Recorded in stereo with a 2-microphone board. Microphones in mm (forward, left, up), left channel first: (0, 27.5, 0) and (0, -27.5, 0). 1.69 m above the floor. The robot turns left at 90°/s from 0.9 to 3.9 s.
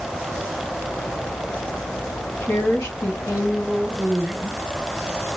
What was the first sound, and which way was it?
A woman speaking, 145° left.